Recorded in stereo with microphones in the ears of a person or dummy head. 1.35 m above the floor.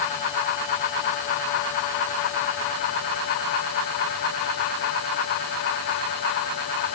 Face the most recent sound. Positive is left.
No sound to turn to.